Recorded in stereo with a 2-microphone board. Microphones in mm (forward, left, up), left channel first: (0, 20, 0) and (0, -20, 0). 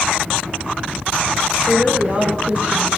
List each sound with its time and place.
1.7 s a woman speaking: 30° right (ahead or behind), 3 m